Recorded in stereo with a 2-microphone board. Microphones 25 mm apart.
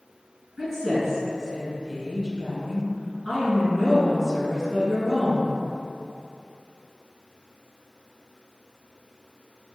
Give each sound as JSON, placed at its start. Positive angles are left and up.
{"t": 0.6, "sound": "a woman speaking", "side_deg": 0, "distance_m": 1.7}